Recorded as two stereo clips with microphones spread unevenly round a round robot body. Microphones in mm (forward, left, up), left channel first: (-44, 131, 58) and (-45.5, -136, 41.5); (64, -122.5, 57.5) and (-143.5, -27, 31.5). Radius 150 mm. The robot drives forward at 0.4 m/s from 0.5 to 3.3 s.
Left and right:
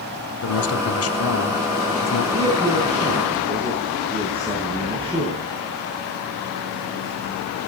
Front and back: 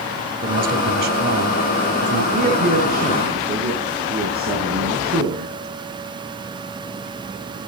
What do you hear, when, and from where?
0.4 s a man speaking: 110° left, 2 m; by 2.2 s 125° left, 2.5 m
2.3 s a man speaking: 160° right, 6 m